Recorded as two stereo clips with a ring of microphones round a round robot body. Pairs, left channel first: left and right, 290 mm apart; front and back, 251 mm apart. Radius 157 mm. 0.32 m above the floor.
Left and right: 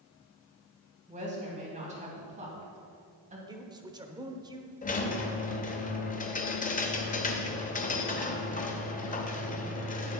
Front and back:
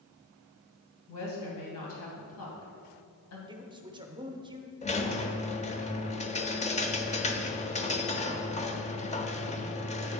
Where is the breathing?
I don't hear breathing.